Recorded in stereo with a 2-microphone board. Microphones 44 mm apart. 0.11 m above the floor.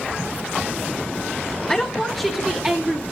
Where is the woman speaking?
15° left (ahead or behind), 1.7 m; by 3.0 s 30° right (ahead or behind), 1.9 m.